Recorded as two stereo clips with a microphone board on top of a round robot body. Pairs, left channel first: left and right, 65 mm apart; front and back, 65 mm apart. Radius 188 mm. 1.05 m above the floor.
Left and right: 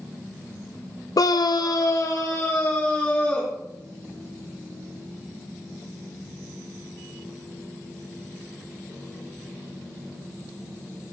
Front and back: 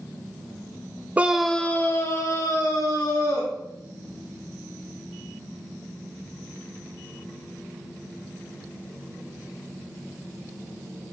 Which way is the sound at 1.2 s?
115° left.